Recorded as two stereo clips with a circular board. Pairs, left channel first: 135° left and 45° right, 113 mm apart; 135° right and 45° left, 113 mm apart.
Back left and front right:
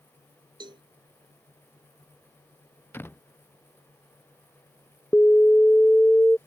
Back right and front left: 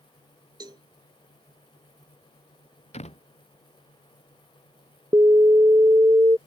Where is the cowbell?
5° right.